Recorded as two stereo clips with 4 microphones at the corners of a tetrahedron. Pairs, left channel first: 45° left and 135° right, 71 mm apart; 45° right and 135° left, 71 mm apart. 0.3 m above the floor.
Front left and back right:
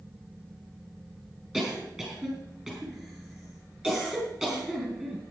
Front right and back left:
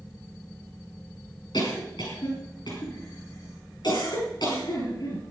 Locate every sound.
1.5 s a cough: 60° right, 4.5 m